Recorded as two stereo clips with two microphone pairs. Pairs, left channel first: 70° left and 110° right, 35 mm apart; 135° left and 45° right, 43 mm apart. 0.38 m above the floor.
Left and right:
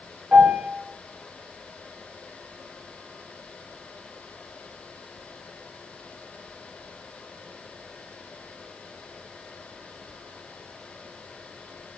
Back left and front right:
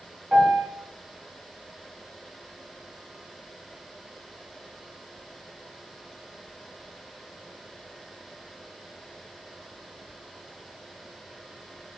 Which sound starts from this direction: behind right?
A piano, at 0.3 s.